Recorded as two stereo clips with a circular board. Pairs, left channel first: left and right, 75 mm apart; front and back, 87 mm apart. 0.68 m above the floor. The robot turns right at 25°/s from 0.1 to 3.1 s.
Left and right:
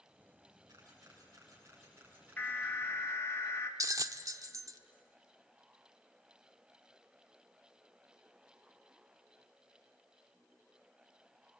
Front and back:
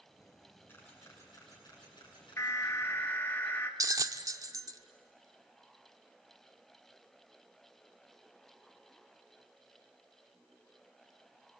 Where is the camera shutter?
65° right, 8 m; by 2.6 s 15° right, 8 m.